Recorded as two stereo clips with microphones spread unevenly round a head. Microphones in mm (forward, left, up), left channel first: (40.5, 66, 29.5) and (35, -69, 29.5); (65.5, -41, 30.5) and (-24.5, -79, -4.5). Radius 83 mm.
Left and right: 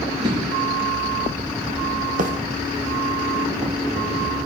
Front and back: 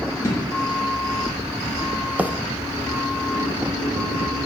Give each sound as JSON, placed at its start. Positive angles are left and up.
{"t": 0.2, "sound": "an explosion", "azimuth_deg": -35, "distance_m": 5.0}
{"t": 2.2, "sound": "a bird", "azimuth_deg": -95, "distance_m": 0.9}